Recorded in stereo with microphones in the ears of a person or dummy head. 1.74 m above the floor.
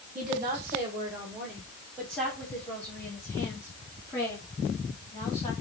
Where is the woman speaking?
35° right (ahead or behind), 1.4 m; by 5.5 s 25° left (ahead or behind), 4 m.